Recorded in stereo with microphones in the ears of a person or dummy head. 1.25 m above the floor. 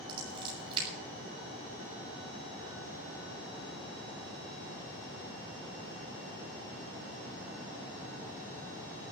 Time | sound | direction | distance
0.1 | scissors | 30° right (ahead or behind) | 9 m